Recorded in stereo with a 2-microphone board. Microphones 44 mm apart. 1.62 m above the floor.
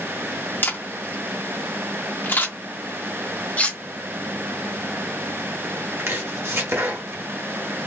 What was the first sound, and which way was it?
A camera shutter, 50° left (ahead or behind).